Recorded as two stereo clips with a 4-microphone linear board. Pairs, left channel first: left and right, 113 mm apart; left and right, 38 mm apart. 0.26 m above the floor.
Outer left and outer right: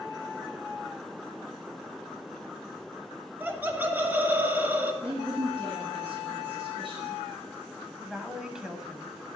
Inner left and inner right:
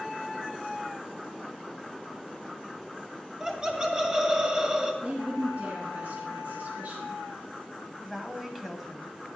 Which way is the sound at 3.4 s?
15° right (ahead or behind).